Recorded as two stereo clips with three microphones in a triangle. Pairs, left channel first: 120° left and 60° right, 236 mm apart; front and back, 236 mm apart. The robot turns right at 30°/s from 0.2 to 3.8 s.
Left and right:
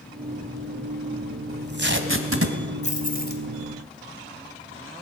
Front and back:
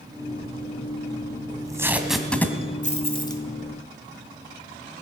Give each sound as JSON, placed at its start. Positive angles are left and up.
{"t": 1.5, "sound": "tape being pulled", "azimuth_deg": -110, "distance_m": 1.8}
{"t": 2.8, "sound": "keys jangling", "azimuth_deg": 60, "distance_m": 2.5}